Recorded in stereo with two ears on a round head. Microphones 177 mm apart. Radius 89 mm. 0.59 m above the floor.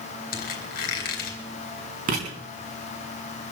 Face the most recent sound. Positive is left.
turn(degrees=-45)  # may be behind; listen again after turning